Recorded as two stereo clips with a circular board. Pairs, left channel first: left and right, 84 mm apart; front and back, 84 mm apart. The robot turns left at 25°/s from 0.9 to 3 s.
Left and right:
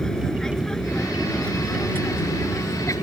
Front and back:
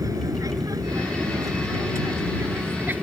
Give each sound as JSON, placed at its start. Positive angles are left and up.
{"t": 0.0, "sound": "an aircraft", "azimuth_deg": 170}